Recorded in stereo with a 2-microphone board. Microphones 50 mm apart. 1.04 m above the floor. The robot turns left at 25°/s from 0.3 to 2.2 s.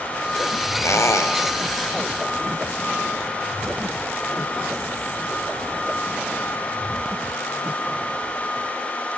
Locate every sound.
0.8 s a squeak: 75° left (ahead or behind), 2.5 m; by 1.4 s 85° left, 2.5 m